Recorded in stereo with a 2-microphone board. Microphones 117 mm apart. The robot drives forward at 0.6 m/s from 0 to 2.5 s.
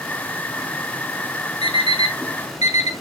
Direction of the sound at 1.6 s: 55° left (ahead or behind).